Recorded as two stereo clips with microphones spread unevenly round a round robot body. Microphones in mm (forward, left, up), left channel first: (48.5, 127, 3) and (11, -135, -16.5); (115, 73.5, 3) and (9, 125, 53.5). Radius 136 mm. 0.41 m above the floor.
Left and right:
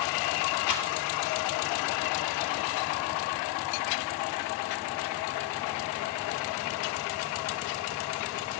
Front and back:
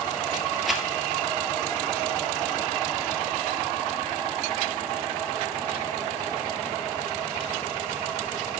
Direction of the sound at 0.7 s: 70° left.